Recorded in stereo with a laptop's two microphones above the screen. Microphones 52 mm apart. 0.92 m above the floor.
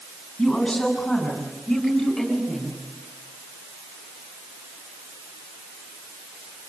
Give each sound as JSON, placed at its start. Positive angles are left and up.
{"t": 0.4, "sound": "a woman speaking", "side_deg": 5, "distance_m": 9.0}